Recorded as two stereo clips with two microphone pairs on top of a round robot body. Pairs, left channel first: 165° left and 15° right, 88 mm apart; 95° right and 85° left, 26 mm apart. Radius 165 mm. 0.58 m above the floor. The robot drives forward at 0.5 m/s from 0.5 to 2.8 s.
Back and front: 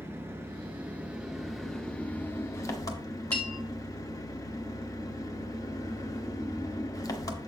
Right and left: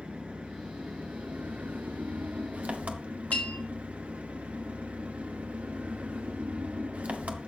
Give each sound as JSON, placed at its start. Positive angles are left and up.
{"t": 0.0, "sound": "an engine running", "azimuth_deg": 45, "distance_m": 1.2}
{"t": 3.3, "sound": "a bell", "azimuth_deg": -125, "distance_m": 1.8}